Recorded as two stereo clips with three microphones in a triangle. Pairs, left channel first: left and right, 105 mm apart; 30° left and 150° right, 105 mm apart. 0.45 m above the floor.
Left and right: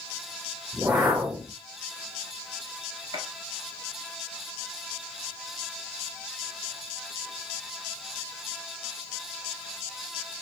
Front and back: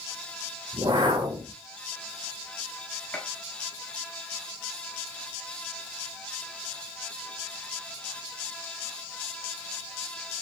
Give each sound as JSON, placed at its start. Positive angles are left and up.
{"t": 0.7, "sound": "a whoosh", "azimuth_deg": -160, "distance_m": 1.1}
{"t": 3.1, "sound": "a gunshot", "azimuth_deg": -45, "distance_m": 1.1}